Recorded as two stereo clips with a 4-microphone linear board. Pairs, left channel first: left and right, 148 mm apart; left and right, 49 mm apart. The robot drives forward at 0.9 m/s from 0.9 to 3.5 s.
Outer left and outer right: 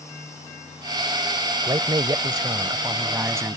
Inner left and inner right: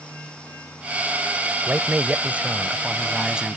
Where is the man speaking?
30° right (ahead or behind); by 3.6 s 15° right (ahead or behind).